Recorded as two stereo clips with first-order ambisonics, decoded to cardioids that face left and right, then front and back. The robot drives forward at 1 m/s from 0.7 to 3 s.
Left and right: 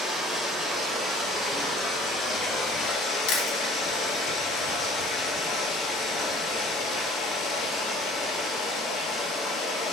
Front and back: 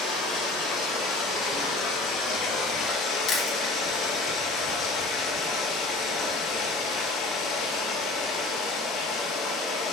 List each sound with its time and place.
0.0 s running water: 25° left, 4.5 m; by 9.9 s 50° left, 3 m
3.3 s chewing: 60° left, 2 m